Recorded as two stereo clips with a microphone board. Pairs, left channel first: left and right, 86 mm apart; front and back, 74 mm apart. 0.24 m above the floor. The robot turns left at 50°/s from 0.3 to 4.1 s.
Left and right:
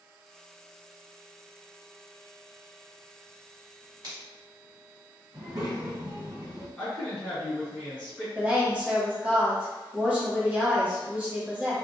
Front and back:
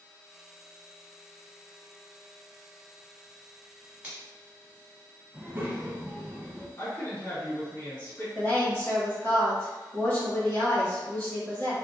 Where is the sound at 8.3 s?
30° right, 1.3 m.